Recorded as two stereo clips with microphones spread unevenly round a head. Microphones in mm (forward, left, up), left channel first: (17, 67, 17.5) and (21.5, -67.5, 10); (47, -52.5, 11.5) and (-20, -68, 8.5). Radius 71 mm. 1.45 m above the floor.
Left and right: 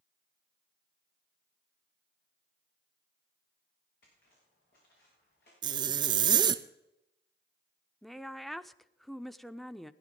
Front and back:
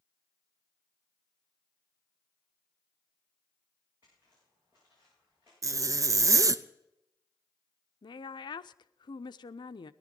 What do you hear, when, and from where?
4.0 s footsteps: 120° left, 8 m; by 5.5 s 115° left, 9 m
5.6 s a zipper: 140° right, 0.6 m
8.0 s a woman speaking: 5° left, 0.6 m